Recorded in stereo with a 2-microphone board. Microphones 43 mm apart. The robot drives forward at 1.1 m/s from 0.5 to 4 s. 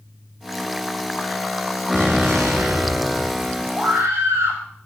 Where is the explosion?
70° right (ahead or behind), 4 m; by 3.6 s 80° right, 4 m.